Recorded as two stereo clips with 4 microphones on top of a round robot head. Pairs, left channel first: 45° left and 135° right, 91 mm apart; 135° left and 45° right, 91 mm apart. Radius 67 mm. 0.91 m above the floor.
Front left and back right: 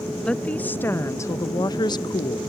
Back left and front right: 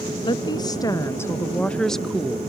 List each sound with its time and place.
0.2 s a woman speaking: 120° left; by 2.4 s 35° left